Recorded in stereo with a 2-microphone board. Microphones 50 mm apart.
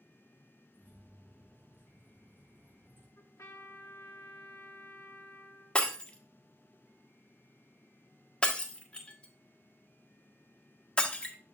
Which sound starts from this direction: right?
Keys jangling, at 0.7 s.